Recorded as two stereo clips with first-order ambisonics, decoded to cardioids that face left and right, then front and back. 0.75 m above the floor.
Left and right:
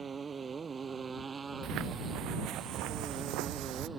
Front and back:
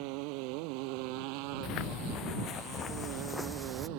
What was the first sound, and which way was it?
A motorcycle, 160° right.